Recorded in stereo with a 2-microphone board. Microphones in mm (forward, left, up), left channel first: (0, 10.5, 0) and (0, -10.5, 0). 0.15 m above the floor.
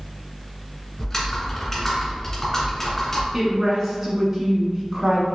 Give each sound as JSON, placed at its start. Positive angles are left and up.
{"t": 1.0, "sound": "typing on a keyboard", "side_deg": 15, "distance_m": 1.4}
{"t": 3.3, "sound": "a woman speaking", "side_deg": -25, "distance_m": 1.2}